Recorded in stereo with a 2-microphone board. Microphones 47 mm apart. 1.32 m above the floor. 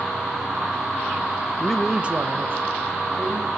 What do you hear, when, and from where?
1.6 s a man speaking: 20° left (ahead or behind), 0.5 m; by 3.5 s 60° right (ahead or behind), 2 m